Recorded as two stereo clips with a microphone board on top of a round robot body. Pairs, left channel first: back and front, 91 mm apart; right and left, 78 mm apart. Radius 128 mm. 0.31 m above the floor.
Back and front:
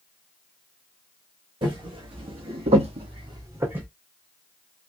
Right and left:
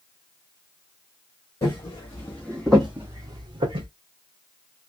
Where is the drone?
I don't hear a drone.